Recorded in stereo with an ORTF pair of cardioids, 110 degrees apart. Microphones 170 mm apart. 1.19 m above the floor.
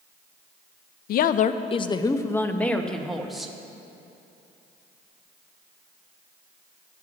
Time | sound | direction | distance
1.1 | a woman speaking | 65° left | 0.5 m